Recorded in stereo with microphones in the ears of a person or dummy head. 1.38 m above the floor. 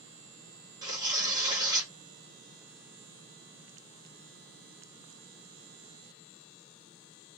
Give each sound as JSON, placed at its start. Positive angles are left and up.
{"t": 0.8, "sound": "tearing paper", "side_deg": -20, "distance_m": 1.3}